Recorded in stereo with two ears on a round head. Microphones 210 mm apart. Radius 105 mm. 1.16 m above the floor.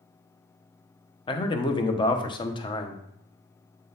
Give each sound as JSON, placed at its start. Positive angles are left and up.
{"t": 1.3, "sound": "a man speaking", "side_deg": 20, "distance_m": 0.8}